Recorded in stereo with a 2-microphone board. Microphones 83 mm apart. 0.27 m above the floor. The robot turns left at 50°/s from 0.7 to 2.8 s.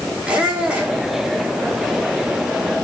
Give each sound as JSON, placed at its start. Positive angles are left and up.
{"t": 0.2, "sound": "a squeak", "side_deg": -15, "distance_m": 7.0}